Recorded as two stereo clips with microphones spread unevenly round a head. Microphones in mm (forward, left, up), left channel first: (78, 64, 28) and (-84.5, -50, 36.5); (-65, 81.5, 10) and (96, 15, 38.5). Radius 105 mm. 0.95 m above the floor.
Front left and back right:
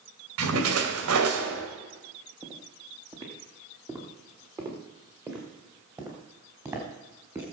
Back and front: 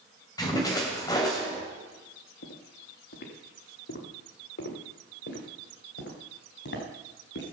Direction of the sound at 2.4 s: 145° left.